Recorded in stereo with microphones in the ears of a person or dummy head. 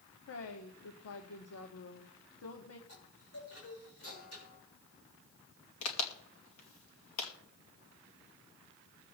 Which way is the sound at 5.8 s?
80° left.